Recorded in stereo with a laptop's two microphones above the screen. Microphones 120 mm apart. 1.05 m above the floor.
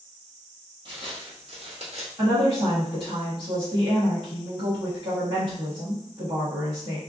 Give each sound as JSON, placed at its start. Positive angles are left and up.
{"t": 0.8, "sound": "footsteps", "side_deg": -40, "distance_m": 1.8}
{"t": 2.2, "sound": "a woman speaking", "side_deg": -40, "distance_m": 1.5}